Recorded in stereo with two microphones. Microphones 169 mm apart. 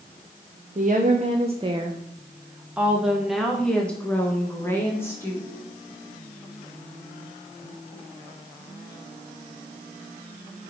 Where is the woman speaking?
50° right (ahead or behind), 1.0 m; by 5.5 s 15° left (ahead or behind), 2 m.